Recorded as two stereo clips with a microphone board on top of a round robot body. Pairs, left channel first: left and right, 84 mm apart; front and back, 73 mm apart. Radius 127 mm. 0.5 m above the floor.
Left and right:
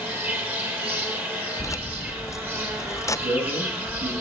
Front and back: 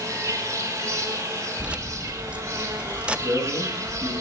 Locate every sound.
0.0 s an insect: 150° right, 2 m
1.6 s keys jangling: 115° left, 0.7 m
3.2 s a man speaking: 95° right, 7.5 m